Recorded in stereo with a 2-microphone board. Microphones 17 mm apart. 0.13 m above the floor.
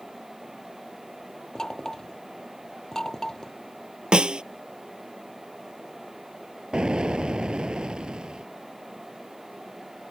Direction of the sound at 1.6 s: 30° left (ahead or behind).